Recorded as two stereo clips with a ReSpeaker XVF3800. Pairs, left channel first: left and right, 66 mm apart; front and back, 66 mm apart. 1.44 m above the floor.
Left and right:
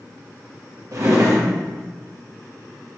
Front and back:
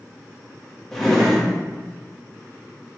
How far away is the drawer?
About 0.8 m.